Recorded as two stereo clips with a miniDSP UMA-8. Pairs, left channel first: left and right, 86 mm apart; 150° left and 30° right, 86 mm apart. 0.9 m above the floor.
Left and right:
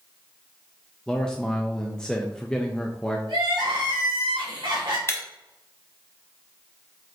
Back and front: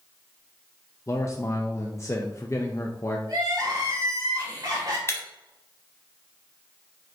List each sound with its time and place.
1.1 s a man speaking: 165° left, 0.5 m
3.3 s crying: 70° right, 1.9 m
5.1 s breaking glass: 120° left, 0.9 m